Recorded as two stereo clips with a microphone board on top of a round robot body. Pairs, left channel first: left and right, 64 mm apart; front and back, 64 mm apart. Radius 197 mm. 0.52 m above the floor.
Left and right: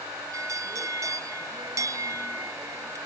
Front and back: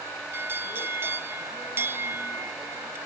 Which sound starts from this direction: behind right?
A bell, at 0.3 s.